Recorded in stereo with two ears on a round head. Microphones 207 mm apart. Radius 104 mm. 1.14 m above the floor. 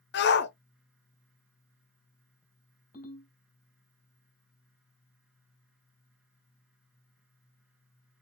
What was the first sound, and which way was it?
A shout, 50° left (ahead or behind).